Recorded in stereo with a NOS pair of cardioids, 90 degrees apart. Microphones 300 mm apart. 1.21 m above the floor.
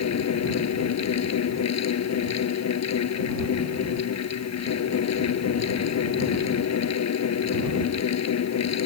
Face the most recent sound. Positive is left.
turn(degrees=60)